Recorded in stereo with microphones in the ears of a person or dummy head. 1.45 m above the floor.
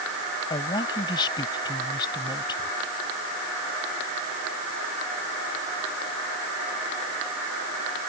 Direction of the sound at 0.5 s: 25° left (ahead or behind).